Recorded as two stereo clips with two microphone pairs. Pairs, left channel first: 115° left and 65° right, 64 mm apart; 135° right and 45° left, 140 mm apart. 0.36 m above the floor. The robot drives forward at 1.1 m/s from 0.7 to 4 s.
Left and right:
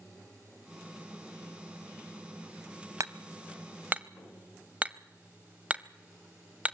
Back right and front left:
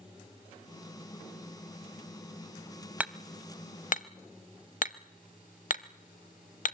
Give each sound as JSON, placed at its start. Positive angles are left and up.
{"t": 3.0, "sound": "hammering", "azimuth_deg": -35, "distance_m": 0.8}